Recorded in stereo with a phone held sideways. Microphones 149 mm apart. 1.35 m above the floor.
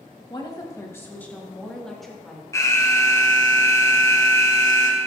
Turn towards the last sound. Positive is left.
turn(degrees=20)  # may be behind; listen again after turning